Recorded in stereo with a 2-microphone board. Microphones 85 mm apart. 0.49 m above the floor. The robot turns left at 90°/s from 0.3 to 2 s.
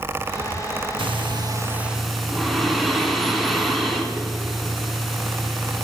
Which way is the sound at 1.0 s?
90° right.